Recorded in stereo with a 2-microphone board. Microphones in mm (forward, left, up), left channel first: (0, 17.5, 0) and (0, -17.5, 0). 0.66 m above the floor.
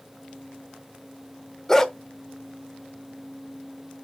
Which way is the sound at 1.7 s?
15° left (ahead or behind).